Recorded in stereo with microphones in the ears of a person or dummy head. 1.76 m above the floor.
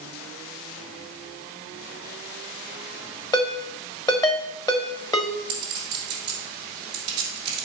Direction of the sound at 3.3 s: 20° left (ahead or behind).